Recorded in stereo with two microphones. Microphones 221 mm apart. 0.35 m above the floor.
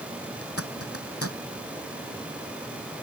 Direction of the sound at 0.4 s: 85° left.